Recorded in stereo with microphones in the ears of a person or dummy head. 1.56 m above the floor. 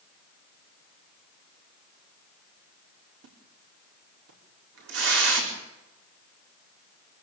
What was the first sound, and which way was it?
A splash, 85° right.